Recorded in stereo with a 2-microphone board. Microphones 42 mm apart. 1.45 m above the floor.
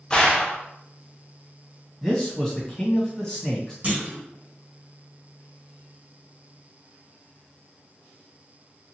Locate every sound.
0.1 s a gunshot: 20° left (ahead or behind), 0.6 m
2.0 s a man speaking: 10° left (ahead or behind), 1.6 m
3.8 s a clunk: 30° right (ahead or behind), 1.2 m